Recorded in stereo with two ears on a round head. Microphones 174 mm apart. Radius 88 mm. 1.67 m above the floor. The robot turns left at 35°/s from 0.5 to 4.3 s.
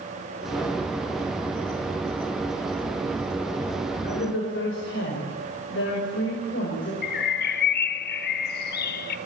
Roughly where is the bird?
Left.